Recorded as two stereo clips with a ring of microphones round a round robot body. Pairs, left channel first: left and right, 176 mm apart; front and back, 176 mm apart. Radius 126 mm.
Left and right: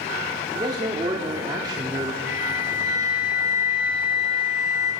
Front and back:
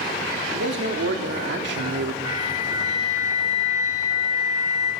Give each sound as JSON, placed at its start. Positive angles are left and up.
{"t": 0.5, "sound": "a man speaking", "azimuth_deg": -160, "distance_m": 1.9}
{"t": 2.3, "sound": "a flute", "azimuth_deg": 50, "distance_m": 5.0}